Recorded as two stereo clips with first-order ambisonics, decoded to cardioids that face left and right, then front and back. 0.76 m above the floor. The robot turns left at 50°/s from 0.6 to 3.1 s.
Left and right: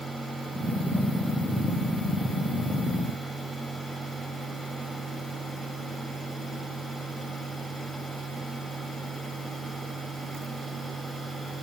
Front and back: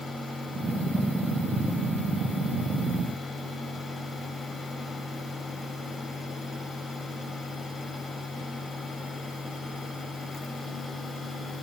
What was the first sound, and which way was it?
Only background noise.